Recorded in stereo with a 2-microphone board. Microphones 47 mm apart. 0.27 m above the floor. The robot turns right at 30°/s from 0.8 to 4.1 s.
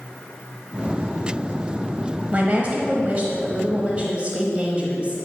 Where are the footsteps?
I don't hear footsteps.